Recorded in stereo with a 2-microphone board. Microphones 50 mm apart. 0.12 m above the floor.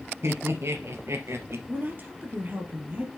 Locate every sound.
0.2 s laughter: 55° right (ahead or behind), 2 m; by 1.6 s 60° right (ahead or behind), 2.5 m
1.7 s a woman speaking: 35° right (ahead or behind), 3 m